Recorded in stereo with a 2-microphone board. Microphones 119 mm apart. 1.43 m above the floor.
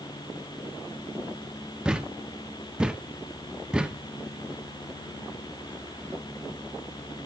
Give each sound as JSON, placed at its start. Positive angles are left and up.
{"t": 1.9, "sound": "a thud", "side_deg": -5, "distance_m": 1.1}